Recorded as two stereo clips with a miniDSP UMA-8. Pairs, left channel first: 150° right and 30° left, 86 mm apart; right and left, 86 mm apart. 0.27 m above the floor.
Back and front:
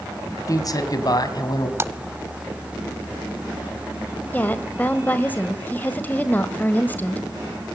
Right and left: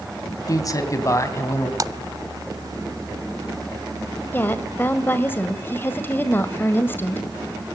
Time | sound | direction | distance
0.5 | a man speaking | 120° right | 2.5 m
1.8 | a splash | 75° left | 0.7 m
4.3 | a woman speaking | 115° right | 1.6 m